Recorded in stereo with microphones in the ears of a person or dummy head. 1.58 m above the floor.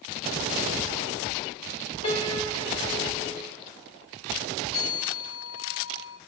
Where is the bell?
50° left (ahead or behind), 1.7 m.